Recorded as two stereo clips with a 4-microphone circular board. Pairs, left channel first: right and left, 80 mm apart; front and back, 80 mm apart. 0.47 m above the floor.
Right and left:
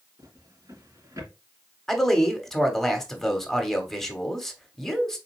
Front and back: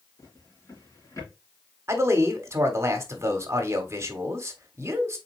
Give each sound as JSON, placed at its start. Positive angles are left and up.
{"t": 0.2, "sound": "a drawer", "azimuth_deg": 45, "distance_m": 3.0}
{"t": 1.9, "sound": "a man speaking", "azimuth_deg": -170, "distance_m": 1.3}